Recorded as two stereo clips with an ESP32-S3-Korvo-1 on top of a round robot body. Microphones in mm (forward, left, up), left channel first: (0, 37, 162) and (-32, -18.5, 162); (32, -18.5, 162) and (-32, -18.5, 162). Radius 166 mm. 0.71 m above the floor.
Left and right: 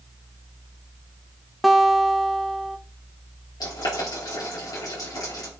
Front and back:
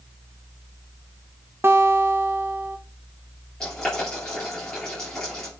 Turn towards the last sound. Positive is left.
turn(degrees=80)